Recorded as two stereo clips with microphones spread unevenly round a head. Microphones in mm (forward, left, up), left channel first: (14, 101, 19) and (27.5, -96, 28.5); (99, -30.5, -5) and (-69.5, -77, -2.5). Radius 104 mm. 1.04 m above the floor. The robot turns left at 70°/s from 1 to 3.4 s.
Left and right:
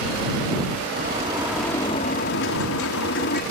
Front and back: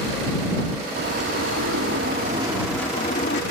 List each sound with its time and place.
1.0 s a bird: 135° right; by 3.4 s 55° left